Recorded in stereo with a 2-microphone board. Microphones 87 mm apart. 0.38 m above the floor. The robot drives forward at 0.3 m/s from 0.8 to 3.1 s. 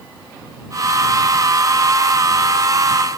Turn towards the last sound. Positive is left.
No sound to turn to.